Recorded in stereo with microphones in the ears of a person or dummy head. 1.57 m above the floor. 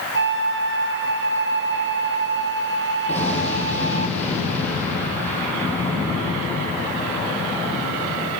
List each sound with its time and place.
0.1 s a flute: 60° right (ahead or behind), 2.5 m
3.1 s an explosion: 15° left (ahead or behind), 9 m